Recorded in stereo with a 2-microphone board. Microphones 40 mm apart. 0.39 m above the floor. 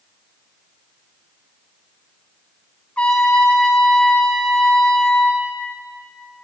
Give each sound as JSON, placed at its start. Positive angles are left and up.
{"t": 3.0, "sound": "a trumpet", "side_deg": 35, "distance_m": 1.8}